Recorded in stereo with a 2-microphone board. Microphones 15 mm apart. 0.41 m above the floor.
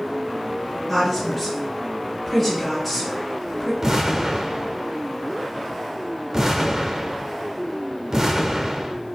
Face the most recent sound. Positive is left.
turn(degrees=-35)  # may be behind; listen again after turning